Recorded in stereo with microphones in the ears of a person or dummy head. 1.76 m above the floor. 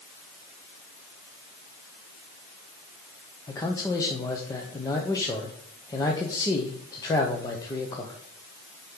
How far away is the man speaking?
About 0.9 m.